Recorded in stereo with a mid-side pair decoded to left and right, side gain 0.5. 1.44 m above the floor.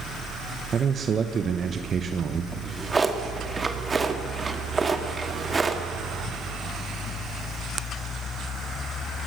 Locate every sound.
0.7 s a man speaking: 40° right, 1.1 m
2.5 s a drawer: 25° right, 1.9 m